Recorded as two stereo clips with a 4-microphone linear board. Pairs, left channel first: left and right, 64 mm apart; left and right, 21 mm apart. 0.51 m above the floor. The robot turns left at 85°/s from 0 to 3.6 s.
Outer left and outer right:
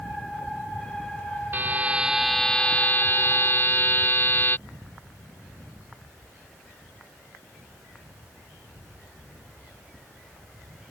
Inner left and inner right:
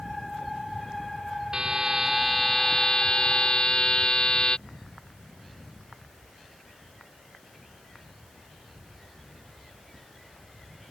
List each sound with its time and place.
1.5 s a buzzer: 115° right; by 4.6 s 70° left